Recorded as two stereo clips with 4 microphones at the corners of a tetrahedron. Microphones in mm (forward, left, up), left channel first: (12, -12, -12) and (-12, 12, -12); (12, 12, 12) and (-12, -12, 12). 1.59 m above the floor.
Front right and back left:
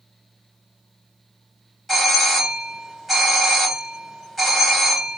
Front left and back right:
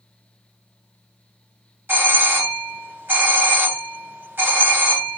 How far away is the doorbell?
About 1.6 m.